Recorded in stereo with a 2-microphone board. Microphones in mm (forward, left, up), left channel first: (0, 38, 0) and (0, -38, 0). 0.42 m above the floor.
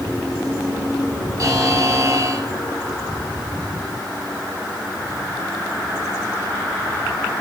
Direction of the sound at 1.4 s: 50° right (ahead or behind).